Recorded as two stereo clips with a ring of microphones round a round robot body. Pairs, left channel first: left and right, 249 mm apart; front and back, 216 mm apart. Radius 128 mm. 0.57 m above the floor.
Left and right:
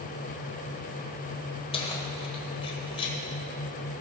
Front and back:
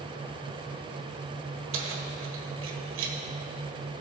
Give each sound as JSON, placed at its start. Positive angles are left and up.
{"t": 1.7, "sound": "keys jangling", "azimuth_deg": 160, "distance_m": 1.5}